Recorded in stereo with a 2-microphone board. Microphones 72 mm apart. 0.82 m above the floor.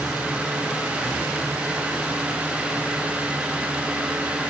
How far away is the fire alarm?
I don't hear a fire alarm.